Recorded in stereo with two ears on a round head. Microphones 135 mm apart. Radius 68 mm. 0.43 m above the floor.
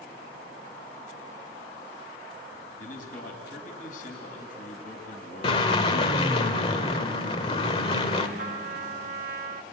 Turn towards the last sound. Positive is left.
turn(degrees=-60)  # may be behind; listen again after turning